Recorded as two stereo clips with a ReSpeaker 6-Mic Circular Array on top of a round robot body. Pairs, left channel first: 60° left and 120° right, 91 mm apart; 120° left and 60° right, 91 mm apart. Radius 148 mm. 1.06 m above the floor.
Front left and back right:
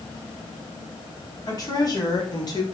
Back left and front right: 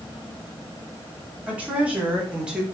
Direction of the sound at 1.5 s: 15° left.